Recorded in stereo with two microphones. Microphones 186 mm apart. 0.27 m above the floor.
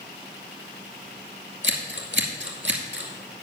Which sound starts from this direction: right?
Scissors, at 1.6 s.